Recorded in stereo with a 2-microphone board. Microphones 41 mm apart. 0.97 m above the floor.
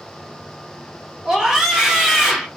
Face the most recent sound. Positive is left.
turn(degrees=-10)  # may be behind; listen again after turning